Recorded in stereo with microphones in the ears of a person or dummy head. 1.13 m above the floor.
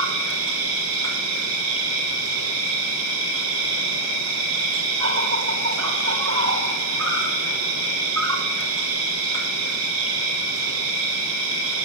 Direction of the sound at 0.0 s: 75° right (ahead or behind).